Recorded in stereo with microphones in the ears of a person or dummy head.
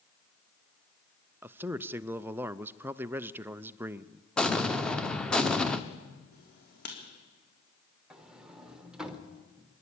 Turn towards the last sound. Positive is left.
turn(degrees=-5)  # may be behind; listen again after turning